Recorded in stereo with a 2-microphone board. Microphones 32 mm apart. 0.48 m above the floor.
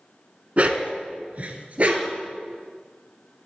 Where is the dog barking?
45° right (ahead or behind), 1.1 m.